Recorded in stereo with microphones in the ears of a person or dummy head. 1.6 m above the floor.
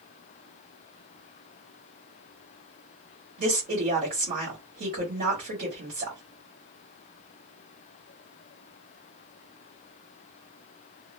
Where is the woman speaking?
45° right (ahead or behind), 1.2 m.